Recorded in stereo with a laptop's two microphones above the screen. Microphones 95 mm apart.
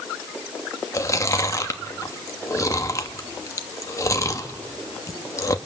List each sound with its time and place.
0.9 s chewing: 35° left (ahead or behind), 1.1 m